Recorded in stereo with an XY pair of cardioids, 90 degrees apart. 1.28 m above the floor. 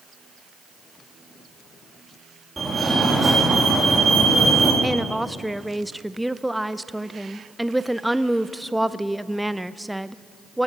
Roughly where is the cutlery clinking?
No cutlery clinking in this recording.